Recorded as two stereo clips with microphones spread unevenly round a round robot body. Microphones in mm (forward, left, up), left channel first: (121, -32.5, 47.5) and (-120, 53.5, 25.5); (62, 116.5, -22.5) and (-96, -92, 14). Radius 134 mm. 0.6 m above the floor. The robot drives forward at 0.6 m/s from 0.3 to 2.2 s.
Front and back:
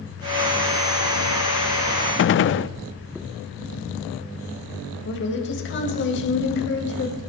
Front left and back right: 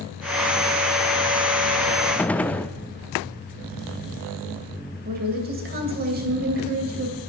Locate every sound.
2.2 s a gunshot: 20° right, 0.6 m
5.0 s a woman speaking: 70° right, 3.5 m